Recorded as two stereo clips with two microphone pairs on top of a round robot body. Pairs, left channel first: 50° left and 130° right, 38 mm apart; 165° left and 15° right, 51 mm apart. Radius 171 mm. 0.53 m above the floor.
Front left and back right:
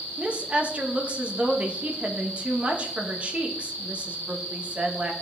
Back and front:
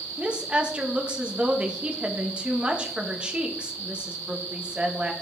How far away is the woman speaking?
About 1.3 m.